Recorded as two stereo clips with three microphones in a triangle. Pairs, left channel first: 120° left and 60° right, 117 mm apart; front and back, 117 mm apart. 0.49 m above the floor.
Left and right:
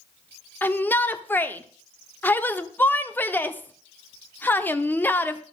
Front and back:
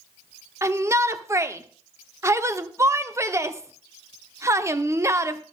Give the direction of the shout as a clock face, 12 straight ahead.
6 o'clock.